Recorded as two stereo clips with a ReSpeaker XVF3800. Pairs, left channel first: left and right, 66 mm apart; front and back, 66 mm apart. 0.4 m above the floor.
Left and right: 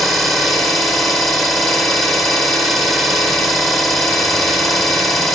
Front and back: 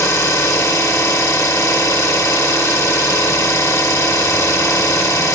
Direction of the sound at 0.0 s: 5° left.